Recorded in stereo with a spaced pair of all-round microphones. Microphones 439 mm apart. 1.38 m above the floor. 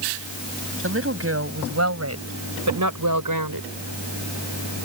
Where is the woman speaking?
30° right (ahead or behind); by 3.7 s 50° right (ahead or behind).